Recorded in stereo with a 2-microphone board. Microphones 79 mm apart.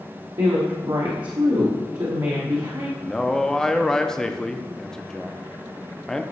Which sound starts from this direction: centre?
A man speaking, at 3.0 s.